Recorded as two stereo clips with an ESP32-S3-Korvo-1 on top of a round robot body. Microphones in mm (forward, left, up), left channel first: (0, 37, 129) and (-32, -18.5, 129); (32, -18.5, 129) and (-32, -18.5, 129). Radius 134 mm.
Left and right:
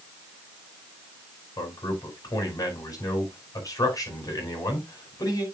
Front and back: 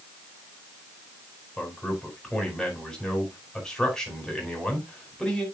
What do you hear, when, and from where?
1.6 s a man speaking: 80° left, 4 m